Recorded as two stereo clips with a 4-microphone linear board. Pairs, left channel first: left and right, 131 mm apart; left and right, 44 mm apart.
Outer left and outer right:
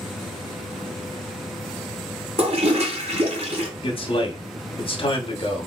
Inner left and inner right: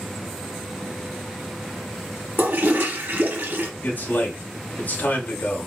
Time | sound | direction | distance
2.4 | a toilet flushing | 50° right (ahead or behind) | 1.2 m
3.8 | a man speaking | 40° left (ahead or behind) | 1.0 m